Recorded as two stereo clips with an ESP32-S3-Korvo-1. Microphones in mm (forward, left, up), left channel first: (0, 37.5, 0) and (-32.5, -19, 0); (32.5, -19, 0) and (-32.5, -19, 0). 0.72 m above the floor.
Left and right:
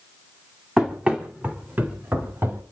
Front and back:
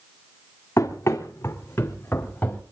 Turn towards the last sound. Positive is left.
turn(degrees=-65)